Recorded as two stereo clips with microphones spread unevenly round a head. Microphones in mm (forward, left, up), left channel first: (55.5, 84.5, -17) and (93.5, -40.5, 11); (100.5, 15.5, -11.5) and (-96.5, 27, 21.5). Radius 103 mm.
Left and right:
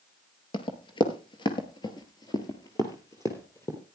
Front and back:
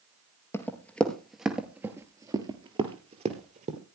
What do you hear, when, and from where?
0.5 s running footsteps: 80° left, 1.7 m; by 3.8 s 170° right, 2 m